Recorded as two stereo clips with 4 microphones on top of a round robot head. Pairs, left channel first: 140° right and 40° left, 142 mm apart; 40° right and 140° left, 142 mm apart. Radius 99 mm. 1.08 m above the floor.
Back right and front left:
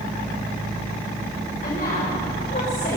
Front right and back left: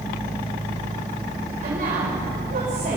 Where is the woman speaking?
Straight behind, 4.5 m.